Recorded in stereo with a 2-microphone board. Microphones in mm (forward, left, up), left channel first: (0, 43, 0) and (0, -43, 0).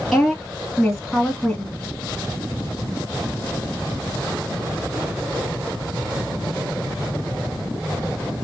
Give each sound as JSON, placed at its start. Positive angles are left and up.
{"t": 0.1, "sound": "a woman speaking", "side_deg": 5, "distance_m": 1.9}